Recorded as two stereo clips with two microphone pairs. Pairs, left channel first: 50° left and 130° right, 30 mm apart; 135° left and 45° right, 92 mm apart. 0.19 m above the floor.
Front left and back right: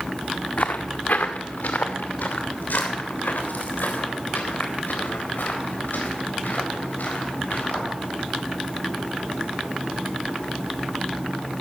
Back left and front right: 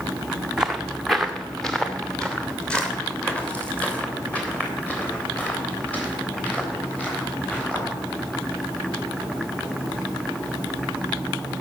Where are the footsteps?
35° left, 0.9 m; by 7.9 s 60° left, 6.5 m.